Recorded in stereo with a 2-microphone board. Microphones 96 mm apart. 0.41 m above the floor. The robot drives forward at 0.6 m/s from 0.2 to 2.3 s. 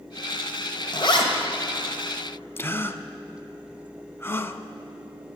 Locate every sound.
0.9 s a zipper: 55° left (ahead or behind), 1.7 m; by 1.3 s 60° left (ahead or behind), 1.6 m
2.6 s a gasp: 25° left (ahead or behind), 0.6 m